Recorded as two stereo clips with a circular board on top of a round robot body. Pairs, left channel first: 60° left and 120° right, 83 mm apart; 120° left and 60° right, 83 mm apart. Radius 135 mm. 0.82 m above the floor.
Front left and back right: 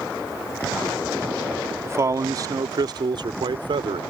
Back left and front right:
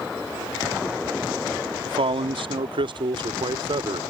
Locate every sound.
1.9 s a man speaking: 60° right; by 4.0 s 95° right